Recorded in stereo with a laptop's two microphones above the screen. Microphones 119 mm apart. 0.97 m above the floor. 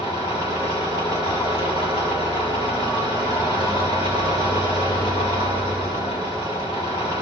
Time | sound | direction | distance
0.0 | an engine running | 35° left (ahead or behind) | 7.5 m